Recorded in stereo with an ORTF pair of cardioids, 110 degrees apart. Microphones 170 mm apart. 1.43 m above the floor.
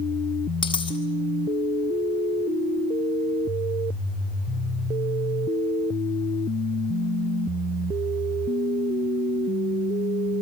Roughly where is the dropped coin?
Ahead left.